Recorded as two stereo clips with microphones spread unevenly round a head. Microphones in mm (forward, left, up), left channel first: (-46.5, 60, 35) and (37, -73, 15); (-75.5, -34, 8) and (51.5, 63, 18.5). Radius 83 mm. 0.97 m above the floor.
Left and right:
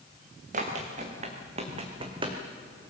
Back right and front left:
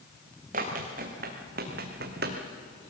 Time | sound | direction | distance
0.5 | running footsteps | 10° right | 3 m